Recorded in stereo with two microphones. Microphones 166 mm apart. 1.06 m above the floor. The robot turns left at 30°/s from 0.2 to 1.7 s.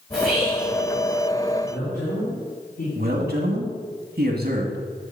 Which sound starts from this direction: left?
A man speaking, at 1.6 s.